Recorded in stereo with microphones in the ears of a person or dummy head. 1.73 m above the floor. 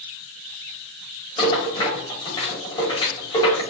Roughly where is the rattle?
Left.